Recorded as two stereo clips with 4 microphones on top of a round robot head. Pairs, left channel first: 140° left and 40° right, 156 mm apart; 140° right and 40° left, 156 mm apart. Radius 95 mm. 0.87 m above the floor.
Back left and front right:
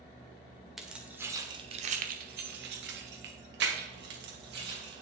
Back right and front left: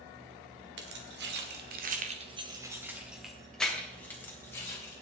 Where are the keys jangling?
50° left, 1.9 m; by 5.0 s 65° right, 4 m.